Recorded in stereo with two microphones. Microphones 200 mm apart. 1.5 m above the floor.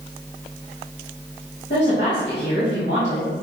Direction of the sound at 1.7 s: 50° left (ahead or behind).